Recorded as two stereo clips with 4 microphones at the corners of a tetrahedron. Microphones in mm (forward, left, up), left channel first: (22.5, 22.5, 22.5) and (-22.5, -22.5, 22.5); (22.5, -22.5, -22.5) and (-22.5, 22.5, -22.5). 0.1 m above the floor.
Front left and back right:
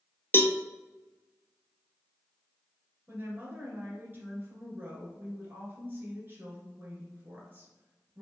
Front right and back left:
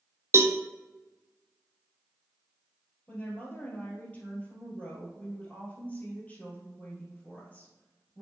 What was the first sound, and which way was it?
A cowbell, 95° left.